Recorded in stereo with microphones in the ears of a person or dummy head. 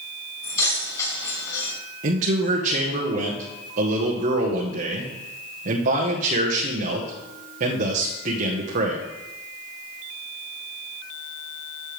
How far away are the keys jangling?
About 5.5 m.